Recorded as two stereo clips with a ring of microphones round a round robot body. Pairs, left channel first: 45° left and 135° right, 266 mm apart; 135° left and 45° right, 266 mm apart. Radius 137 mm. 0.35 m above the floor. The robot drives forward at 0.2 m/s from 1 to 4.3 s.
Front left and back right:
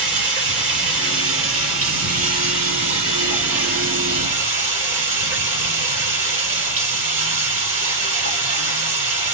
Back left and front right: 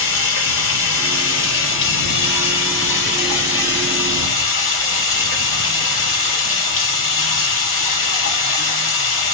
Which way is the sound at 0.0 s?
Straight behind.